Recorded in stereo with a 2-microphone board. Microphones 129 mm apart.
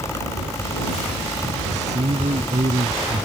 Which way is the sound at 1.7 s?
65° right (ahead or behind).